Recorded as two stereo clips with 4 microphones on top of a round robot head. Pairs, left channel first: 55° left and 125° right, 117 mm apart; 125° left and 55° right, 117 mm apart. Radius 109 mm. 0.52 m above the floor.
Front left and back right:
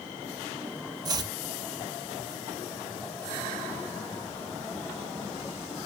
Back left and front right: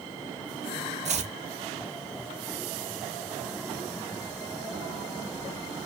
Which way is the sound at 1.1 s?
70° right.